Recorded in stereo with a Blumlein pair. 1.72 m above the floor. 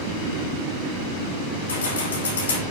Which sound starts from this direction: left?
Keys jangling, at 1.7 s.